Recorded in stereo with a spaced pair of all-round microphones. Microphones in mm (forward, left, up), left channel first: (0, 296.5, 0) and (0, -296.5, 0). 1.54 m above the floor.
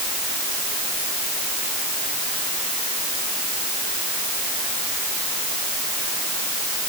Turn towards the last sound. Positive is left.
No sound to turn to.